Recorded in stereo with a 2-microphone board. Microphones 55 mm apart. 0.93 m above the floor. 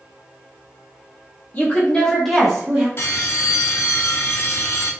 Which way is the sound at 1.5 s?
30° left (ahead or behind).